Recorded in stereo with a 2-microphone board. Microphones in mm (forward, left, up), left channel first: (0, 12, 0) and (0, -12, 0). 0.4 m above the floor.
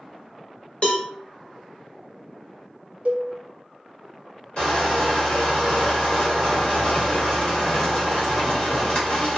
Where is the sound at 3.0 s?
80° right, 0.6 m.